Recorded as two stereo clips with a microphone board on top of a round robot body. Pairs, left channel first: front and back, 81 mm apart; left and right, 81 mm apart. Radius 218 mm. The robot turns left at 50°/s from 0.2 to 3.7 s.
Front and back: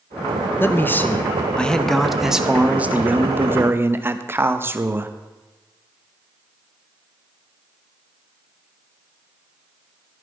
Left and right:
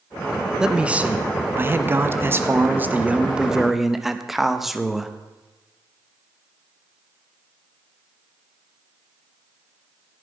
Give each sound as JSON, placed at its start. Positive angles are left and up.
{"t": 0.6, "sound": "a man speaking", "azimuth_deg": -15, "distance_m": 1.1}